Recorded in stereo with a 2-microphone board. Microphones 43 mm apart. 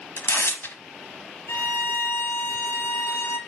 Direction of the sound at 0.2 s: 60° left (ahead or behind).